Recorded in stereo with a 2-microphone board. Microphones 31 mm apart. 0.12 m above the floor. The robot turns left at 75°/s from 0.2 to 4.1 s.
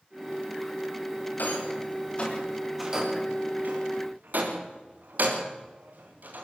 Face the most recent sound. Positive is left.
turn(degrees=-75)  # may be behind; listen again after turning